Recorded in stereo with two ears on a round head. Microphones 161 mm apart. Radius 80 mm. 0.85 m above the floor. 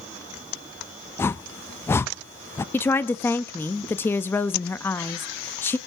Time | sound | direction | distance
1.2 | a whoosh | 15° left (ahead or behind) | 0.5 m
2.7 | a woman speaking | 10° left (ahead or behind) | 0.8 m